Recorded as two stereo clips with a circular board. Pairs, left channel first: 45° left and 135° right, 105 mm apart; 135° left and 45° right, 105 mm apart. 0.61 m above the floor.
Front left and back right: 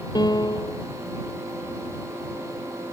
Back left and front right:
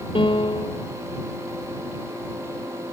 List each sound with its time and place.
0.1 s a piano: 95° left